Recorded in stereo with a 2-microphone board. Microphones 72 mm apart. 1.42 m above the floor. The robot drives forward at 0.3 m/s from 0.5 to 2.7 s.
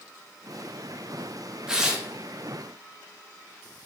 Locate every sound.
1.7 s tearing paper: 10° right (ahead or behind), 0.7 m